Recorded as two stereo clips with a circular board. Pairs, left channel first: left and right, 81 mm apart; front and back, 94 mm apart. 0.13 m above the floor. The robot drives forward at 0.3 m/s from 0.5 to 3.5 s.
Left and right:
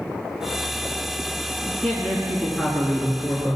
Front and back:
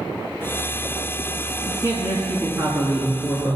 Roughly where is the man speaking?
Behind.